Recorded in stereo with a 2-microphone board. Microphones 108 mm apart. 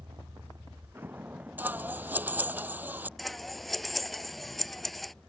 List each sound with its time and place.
0.0 s a vehicle: 45° right (ahead or behind); by 5.3 s 5° left (ahead or behind)
1.6 s scissors: 15° right (ahead or behind)
3.2 s scissors: centre (ahead or behind)